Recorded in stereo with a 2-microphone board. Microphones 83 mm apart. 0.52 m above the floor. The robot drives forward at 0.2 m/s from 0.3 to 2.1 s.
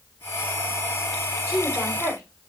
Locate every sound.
1.5 s a woman speaking: 40° right (ahead or behind), 1.8 m